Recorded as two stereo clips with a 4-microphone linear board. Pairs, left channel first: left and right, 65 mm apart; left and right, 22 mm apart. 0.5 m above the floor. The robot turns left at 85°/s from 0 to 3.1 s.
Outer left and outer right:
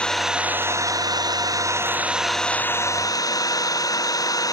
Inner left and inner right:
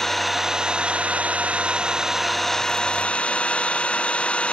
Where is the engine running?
15° left; by 4.5 s 115° left.